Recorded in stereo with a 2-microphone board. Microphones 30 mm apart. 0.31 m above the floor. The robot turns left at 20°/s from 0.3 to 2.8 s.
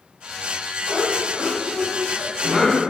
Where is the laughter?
25° right (ahead or behind), 1.5 m; by 2.8 s 15° right (ahead or behind), 1.5 m.